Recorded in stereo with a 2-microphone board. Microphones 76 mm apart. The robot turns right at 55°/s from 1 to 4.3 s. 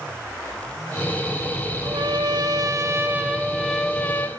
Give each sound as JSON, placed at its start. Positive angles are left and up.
{"t": 1.8, "sound": "a trumpet", "azimuth_deg": -105, "distance_m": 1.0}